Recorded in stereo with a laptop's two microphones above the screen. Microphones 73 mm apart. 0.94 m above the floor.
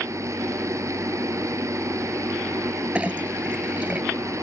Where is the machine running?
40° right (ahead or behind).